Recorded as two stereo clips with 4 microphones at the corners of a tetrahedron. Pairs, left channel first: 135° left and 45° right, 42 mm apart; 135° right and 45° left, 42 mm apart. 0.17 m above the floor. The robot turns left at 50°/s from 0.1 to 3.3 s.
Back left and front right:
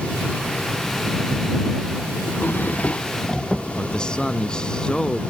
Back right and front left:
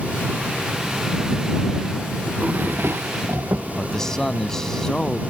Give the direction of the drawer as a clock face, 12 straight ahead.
9 o'clock.